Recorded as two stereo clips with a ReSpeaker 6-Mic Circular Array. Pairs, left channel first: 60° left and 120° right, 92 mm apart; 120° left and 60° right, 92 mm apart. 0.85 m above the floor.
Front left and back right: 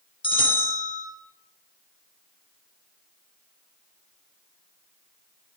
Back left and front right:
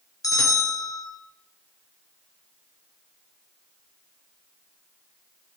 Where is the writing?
I don't hear writing.